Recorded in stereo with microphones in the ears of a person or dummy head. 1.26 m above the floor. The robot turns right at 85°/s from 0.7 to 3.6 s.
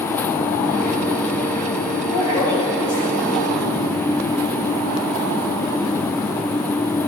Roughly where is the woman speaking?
Behind left.